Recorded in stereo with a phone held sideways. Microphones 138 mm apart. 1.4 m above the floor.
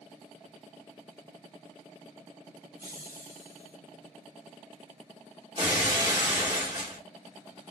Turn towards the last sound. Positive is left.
turn(degrees=-35)  # may be behind; listen again after turning